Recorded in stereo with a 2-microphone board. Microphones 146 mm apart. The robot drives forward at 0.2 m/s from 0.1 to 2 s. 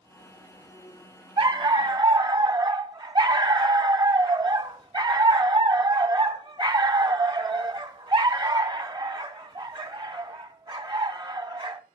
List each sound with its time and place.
1.4 s a dog barking: 35° right (ahead or behind), 0.7 m; by 11.8 s 30° right (ahead or behind), 0.7 m